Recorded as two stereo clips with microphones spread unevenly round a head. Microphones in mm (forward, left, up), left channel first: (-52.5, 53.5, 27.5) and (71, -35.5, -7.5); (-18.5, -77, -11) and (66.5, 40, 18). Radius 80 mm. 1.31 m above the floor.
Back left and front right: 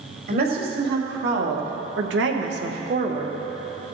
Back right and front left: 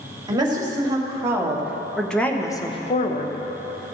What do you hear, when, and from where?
0.3 s a woman speaking: 10° right, 2.5 m; by 3.4 s 105° right, 1.0 m